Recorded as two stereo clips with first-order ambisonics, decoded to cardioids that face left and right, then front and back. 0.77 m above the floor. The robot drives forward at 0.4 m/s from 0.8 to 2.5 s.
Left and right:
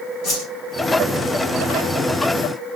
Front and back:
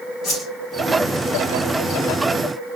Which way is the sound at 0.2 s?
55° left.